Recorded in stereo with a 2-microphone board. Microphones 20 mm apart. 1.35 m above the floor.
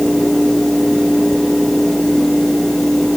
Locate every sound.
Only background noise.